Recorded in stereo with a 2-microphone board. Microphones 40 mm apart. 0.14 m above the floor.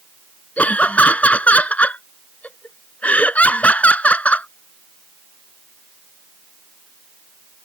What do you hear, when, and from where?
0.6 s laughter: 35° left (ahead or behind)